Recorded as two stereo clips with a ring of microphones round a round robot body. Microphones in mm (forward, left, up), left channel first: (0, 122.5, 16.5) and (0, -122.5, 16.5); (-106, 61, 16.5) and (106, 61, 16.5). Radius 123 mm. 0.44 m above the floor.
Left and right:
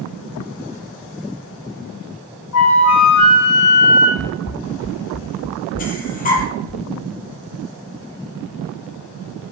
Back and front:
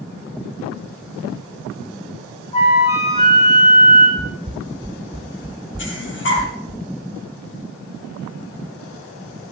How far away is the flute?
About 5.5 m.